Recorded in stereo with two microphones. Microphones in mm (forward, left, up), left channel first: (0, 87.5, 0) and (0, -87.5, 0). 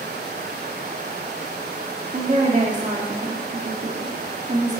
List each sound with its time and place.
2.1 s a woman speaking: 40° right (ahead or behind), 1.8 m